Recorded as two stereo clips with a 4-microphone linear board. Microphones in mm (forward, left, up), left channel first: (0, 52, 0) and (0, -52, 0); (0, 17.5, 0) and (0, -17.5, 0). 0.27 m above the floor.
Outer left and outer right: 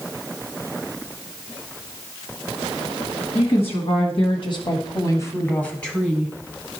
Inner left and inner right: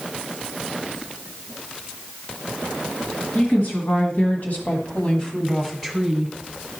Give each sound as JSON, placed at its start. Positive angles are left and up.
{"t": 3.4, "sound": "a woman speaking", "side_deg": 65, "distance_m": 2.5}